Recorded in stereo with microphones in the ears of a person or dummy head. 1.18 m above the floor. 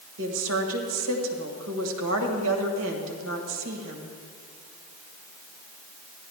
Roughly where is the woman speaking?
Right.